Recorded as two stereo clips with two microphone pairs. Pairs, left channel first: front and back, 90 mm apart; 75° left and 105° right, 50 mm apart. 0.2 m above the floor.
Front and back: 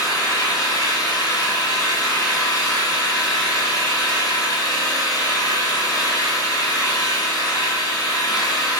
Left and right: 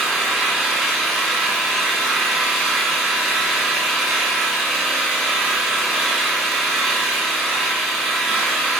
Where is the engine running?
20° right, 1.4 m.